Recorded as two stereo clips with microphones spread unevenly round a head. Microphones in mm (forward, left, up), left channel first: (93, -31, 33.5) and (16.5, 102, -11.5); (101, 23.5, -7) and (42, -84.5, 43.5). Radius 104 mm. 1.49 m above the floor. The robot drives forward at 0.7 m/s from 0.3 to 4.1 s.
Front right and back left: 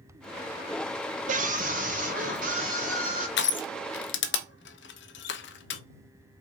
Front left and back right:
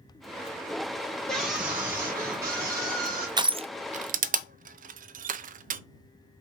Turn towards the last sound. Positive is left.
turn(degrees=-100)